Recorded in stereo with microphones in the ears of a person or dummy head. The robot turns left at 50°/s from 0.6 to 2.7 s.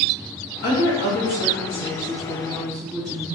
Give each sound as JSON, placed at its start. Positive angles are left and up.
{"t": 0.6, "sound": "a woman speaking", "azimuth_deg": 105, "distance_m": 1.4}